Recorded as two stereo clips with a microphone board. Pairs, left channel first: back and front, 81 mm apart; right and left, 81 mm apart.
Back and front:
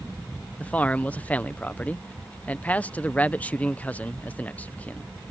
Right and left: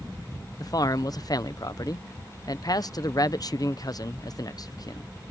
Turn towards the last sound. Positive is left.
turn(degrees=-115)